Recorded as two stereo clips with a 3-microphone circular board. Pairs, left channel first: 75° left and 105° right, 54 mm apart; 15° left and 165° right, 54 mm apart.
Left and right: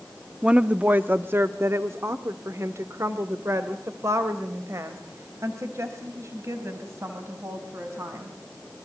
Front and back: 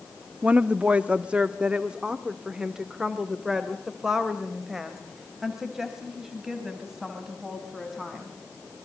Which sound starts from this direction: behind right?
A woman speaking, at 0.4 s.